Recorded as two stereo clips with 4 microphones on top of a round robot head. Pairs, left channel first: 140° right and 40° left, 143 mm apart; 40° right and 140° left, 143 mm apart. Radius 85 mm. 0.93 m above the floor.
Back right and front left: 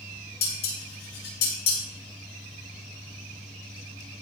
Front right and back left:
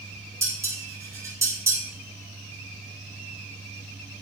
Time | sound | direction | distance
0.4 | dishes clattering | 150° right | 6.5 m